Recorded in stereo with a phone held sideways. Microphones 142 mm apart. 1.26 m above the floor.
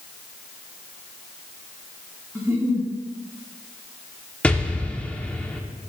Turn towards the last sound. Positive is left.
turn(degrees=10)  # may be behind; listen again after turning